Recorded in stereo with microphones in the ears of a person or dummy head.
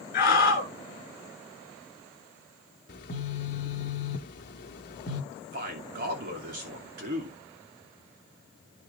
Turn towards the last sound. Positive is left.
turn(degrees=-40)  # may be behind; listen again after turning